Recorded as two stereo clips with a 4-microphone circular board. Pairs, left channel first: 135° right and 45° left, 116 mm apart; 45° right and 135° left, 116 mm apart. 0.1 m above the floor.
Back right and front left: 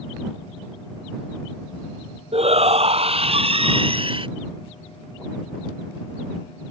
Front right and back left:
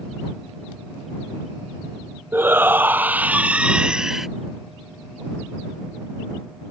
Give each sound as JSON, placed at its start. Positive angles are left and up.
{"t": 2.3, "sound": "a shout", "azimuth_deg": 65}